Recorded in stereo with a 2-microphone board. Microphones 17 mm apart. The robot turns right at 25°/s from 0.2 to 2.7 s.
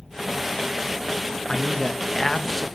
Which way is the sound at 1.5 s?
30° left (ahead or behind).